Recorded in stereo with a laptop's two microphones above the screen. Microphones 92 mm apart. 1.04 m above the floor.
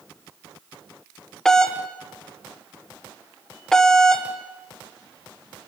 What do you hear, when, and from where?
1.4 s a doorbell: 5° left (ahead or behind), 1.5 m